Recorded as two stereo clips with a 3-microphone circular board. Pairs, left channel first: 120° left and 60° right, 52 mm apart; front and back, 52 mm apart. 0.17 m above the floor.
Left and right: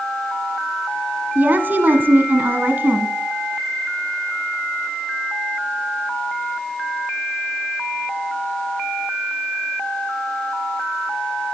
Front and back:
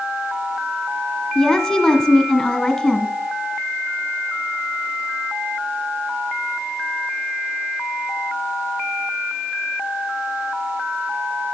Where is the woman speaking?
75° right, 1.2 m.